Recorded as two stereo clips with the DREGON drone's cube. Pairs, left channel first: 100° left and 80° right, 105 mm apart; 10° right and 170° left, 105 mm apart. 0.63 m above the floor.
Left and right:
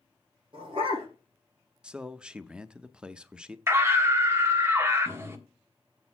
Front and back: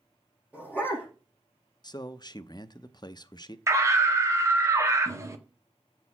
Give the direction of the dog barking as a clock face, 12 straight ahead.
4 o'clock.